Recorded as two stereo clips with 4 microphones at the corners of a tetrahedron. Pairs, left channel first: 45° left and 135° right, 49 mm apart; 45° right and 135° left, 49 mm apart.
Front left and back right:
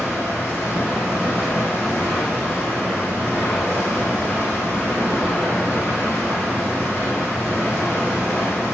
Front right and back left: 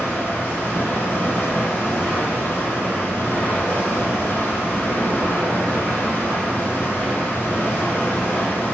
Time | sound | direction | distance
0.0 | running water | 5° left | 2 m